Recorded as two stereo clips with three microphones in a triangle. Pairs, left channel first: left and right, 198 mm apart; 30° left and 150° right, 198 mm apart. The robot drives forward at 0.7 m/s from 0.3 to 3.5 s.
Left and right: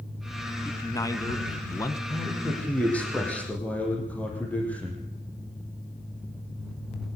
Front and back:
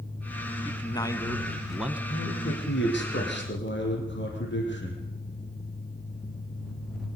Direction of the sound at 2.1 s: 5° left.